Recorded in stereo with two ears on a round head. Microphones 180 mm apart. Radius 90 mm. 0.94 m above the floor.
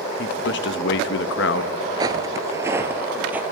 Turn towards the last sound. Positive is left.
turn(degrees=-10)  # may be behind; listen again after turning